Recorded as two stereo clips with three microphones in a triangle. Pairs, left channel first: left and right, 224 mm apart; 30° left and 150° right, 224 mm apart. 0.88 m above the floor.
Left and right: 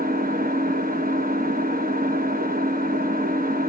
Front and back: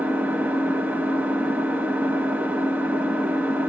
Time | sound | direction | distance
0.0 | an engine running | 70° right | 0.8 m